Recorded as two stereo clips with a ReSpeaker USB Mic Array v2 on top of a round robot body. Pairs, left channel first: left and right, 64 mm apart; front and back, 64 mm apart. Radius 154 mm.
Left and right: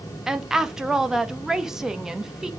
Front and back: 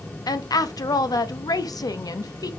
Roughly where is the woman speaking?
Ahead.